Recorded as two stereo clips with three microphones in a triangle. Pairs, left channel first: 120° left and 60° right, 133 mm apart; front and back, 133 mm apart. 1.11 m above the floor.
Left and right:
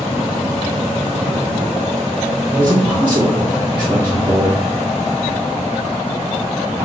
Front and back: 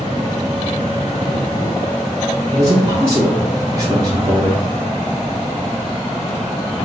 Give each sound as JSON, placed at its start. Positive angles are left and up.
{"t": 2.5, "sound": "a man speaking", "azimuth_deg": -130, "distance_m": 0.7}